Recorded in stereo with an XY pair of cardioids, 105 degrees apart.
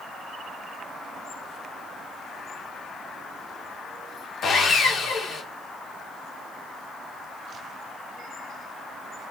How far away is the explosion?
I don't hear an explosion.